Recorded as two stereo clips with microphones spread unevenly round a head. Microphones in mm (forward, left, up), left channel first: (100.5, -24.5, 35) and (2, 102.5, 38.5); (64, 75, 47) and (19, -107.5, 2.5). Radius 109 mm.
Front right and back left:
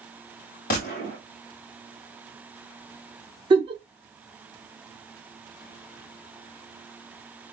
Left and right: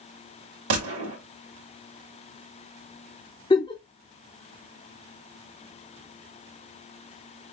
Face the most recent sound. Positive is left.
turn(degrees=95)